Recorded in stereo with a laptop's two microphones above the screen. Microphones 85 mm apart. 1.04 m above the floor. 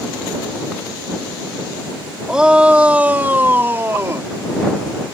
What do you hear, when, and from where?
2.3 s a shout: 10° right (ahead or behind); by 4.3 s 35° right (ahead or behind)